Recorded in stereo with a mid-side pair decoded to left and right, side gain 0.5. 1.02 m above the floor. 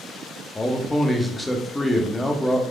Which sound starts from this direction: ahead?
A man speaking, at 0.6 s.